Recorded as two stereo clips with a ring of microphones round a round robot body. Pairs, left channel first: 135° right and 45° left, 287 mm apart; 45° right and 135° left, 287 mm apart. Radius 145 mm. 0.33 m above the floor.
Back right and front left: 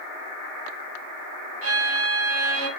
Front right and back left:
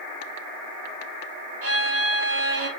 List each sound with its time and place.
1.6 s a violin: 90° left, 2.5 m